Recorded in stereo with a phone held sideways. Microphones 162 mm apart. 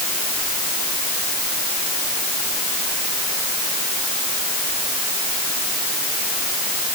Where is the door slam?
I don't hear a door slam.